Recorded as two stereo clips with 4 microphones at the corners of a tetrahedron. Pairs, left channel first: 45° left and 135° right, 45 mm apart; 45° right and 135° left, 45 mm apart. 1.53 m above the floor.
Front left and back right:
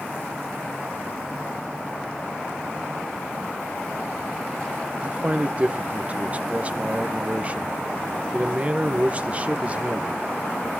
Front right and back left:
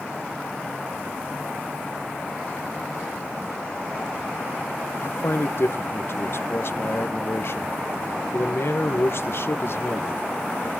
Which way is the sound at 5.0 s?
75° right.